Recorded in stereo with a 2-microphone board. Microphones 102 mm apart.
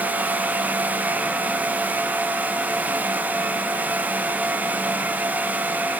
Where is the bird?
No bird in this recording.